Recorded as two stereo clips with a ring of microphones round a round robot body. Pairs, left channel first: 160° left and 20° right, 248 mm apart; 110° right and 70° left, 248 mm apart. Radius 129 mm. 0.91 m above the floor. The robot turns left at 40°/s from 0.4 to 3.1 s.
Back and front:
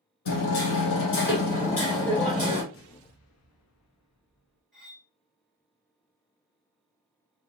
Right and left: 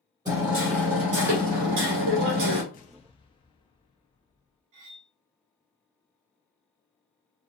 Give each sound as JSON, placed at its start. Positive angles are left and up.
{"t": 0.2, "sound": "hammering", "azimuth_deg": 140, "distance_m": 2.5}
{"t": 2.7, "sound": "an explosion", "azimuth_deg": -170, "distance_m": 0.8}
{"t": 4.7, "sound": "cutlery clinking", "azimuth_deg": 65, "distance_m": 2.5}